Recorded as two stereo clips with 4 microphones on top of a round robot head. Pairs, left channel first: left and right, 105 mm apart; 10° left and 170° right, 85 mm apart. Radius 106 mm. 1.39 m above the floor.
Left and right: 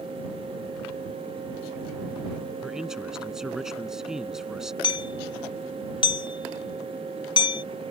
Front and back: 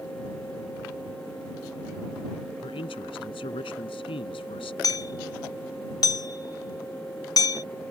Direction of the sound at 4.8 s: 50° left.